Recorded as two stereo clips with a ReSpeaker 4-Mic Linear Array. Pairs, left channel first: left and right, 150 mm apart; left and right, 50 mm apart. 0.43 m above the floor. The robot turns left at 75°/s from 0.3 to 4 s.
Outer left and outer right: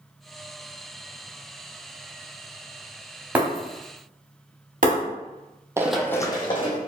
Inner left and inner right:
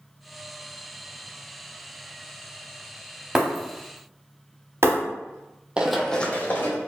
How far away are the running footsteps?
About 0.5 m.